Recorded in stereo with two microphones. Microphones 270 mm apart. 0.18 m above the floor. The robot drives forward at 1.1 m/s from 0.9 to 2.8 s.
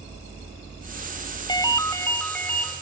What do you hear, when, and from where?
1.5 s a ringtone: 15° left (ahead or behind), 0.5 m; by 2.7 s 5° left (ahead or behind), 1.6 m